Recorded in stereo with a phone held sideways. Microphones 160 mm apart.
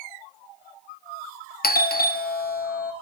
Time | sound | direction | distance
1.6 | a doorbell | 70° left (ahead or behind) | 0.6 m